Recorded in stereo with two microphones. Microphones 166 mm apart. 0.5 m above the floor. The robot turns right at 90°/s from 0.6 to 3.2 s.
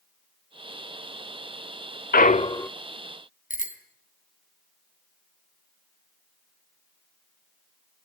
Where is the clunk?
115° left, 0.5 m; by 2.7 s 170° left, 0.5 m.